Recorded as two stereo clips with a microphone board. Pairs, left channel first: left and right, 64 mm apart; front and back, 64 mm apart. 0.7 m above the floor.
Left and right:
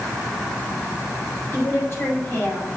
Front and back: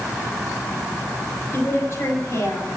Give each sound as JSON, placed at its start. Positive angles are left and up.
{"t": 1.5, "sound": "a woman speaking", "azimuth_deg": 45, "distance_m": 4.5}